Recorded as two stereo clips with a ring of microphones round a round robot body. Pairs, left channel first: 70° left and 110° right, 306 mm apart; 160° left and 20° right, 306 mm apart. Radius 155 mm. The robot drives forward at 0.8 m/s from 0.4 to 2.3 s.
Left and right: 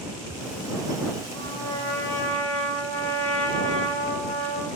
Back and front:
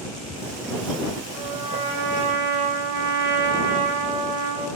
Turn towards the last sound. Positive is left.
turn(degrees=-15)